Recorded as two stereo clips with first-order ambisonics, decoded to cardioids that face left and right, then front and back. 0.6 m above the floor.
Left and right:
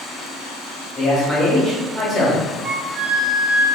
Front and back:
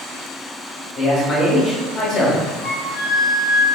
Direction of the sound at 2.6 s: 165° right.